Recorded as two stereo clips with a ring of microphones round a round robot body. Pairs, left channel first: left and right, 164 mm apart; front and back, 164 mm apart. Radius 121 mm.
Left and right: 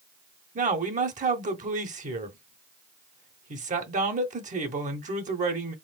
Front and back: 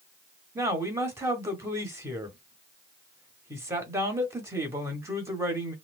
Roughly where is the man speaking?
Right.